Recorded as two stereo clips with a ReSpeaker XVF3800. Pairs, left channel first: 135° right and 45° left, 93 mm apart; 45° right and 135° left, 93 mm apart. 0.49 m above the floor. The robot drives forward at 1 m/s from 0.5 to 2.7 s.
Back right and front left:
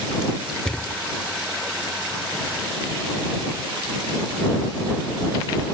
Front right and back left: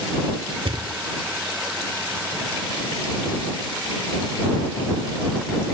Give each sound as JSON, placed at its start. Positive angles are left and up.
{"t": 0.7, "sound": "a thud", "azimuth_deg": 145}